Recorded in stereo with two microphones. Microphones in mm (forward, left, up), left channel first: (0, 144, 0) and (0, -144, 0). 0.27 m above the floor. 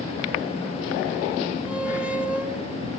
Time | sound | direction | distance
1.7 | a squeak | 5° right (ahead or behind) | 0.8 m